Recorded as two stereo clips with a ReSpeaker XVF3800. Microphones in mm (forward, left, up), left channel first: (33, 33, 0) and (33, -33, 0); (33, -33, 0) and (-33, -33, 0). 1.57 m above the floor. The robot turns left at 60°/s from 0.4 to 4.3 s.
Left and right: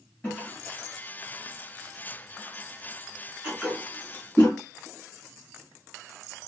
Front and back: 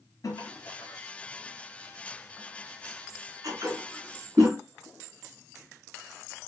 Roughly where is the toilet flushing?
Ahead.